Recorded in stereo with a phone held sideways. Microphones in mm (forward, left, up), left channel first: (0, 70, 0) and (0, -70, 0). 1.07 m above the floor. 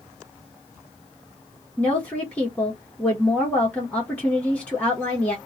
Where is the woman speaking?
10° left (ahead or behind), 1.7 m.